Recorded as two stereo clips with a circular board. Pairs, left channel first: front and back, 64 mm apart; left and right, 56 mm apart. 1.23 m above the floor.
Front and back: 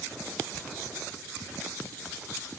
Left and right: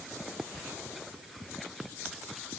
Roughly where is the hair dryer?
I don't hear a hair dryer.